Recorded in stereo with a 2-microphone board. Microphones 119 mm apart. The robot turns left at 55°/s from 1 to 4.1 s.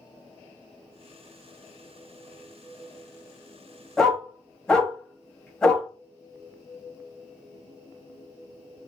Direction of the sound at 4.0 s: 5° left (ahead or behind).